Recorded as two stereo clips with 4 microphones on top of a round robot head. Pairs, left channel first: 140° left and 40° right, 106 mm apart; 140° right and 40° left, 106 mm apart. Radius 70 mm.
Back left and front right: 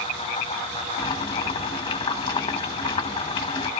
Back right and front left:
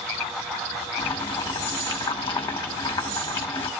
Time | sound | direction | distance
1.0 | boiling | 175° right | 1.5 m